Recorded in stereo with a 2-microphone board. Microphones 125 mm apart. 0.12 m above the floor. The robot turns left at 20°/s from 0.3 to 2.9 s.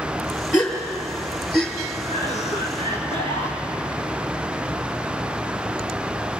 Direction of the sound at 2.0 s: 75° left (ahead or behind).